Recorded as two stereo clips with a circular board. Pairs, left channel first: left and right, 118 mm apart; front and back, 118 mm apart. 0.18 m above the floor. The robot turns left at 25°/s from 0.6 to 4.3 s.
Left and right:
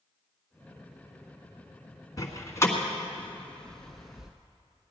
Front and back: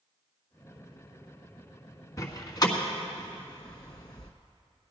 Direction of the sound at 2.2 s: 45° left.